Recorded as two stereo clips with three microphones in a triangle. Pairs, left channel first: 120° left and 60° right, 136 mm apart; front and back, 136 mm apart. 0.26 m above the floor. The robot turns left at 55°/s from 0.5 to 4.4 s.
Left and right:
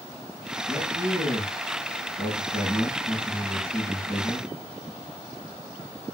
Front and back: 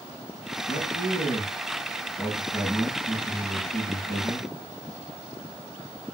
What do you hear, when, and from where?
0.7 s a man speaking: 10° left, 5.5 m; by 4.5 s 165° left, 5.5 m